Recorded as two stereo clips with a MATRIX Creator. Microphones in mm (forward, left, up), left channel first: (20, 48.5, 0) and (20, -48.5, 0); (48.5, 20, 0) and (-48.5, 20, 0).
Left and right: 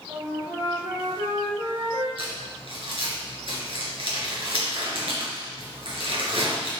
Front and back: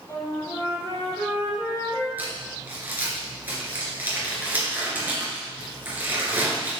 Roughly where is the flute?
Ahead right.